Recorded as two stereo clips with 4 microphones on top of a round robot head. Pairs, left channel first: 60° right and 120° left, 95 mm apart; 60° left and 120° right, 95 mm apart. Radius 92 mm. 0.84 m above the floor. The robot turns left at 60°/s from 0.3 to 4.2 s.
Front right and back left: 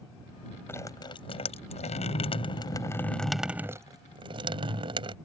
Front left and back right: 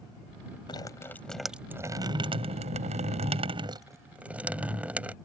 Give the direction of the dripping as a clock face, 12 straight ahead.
12 o'clock.